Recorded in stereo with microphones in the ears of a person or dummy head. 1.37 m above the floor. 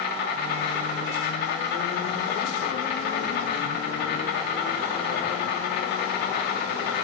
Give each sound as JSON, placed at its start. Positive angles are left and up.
{"t": 0.0, "sound": "an insect", "side_deg": 60, "distance_m": 3.0}